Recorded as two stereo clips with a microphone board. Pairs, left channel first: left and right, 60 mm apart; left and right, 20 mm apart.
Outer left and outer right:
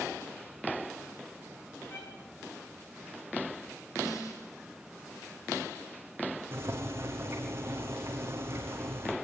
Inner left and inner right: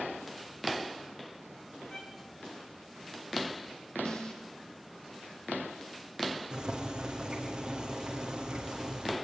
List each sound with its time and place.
1.9 s a violin: 40° left (ahead or behind), 6.5 m
4.0 s a snare drum: 60° left (ahead or behind), 7.5 m
6.5 s boiling: 40° right (ahead or behind), 6 m